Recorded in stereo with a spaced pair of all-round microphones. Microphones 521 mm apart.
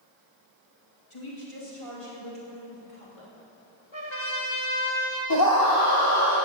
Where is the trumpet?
55° left (ahead or behind), 2.5 m.